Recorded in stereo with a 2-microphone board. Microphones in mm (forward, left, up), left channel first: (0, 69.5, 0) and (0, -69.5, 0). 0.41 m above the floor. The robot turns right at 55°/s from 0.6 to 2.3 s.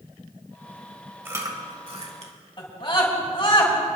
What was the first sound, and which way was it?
Chewing, 15° right (ahead or behind).